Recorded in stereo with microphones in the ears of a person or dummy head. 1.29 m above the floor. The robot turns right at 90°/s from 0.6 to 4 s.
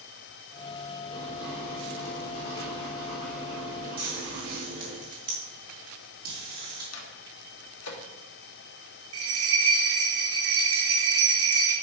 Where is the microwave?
85° left, 1.7 m.